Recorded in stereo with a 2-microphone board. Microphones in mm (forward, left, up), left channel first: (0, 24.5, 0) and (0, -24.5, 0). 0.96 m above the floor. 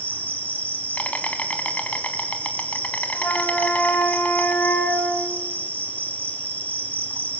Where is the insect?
30° left (ahead or behind), 1.9 m.